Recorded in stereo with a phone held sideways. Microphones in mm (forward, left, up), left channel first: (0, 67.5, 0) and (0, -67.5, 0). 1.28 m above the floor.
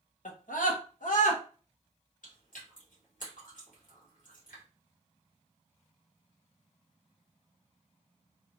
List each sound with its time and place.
0.2 s a scream: 75° left (ahead or behind), 0.9 m
2.2 s chewing: 80° left, 1.8 m